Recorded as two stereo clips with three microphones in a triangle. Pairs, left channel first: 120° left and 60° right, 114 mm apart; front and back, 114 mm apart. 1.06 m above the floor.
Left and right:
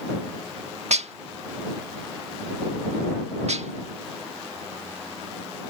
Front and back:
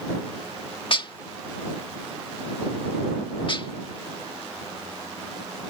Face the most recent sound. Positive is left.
turn(degrees=-45)